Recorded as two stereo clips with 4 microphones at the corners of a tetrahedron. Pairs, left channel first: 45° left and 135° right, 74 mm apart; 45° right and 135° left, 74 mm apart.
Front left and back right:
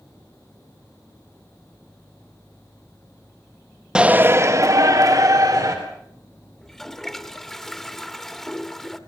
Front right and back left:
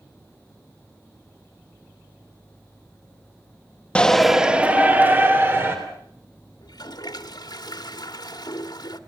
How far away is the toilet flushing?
About 1.2 m.